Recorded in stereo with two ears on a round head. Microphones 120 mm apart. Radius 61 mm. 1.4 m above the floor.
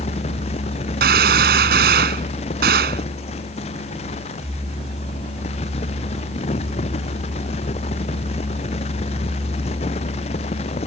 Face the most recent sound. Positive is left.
turn(degrees=-85)